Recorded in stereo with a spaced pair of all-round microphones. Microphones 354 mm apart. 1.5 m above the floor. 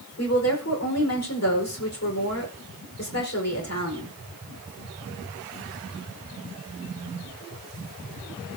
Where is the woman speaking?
45° left (ahead or behind), 5 m.